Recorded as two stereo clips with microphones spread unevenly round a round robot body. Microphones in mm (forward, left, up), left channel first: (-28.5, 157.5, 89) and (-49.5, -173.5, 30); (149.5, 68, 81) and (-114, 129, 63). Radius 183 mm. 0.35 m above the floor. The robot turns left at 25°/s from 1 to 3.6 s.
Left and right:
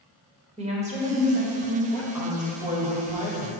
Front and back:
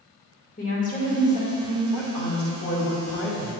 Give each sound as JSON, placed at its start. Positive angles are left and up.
{"t": 0.6, "sound": "a woman speaking", "azimuth_deg": -60, "distance_m": 1.4}
{"t": 1.9, "sound": "a woman speaking", "azimuth_deg": -5, "distance_m": 1.6}